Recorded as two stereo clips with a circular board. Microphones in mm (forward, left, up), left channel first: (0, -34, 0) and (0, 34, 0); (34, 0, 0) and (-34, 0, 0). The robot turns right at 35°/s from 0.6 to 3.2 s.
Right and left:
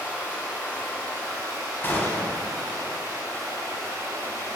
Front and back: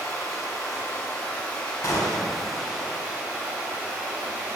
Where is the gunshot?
35° right, 0.6 m; by 2.4 s 15° right, 0.6 m.